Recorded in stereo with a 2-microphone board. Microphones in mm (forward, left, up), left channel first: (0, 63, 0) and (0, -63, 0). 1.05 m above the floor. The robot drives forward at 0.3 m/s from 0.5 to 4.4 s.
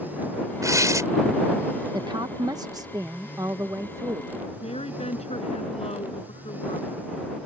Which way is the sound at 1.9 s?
35° right (ahead or behind).